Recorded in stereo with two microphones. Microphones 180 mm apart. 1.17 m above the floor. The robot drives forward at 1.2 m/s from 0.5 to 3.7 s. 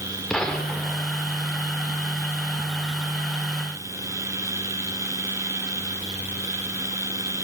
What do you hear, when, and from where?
0.3 s a gunshot: 5° left (ahead or behind), 3 m